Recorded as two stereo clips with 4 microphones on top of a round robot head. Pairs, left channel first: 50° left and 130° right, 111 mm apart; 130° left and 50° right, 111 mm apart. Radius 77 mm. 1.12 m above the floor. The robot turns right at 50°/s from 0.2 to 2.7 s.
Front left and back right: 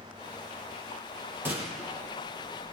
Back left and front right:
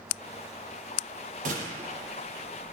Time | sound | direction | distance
1.4 | a gunshot | 60° right | 5.5 m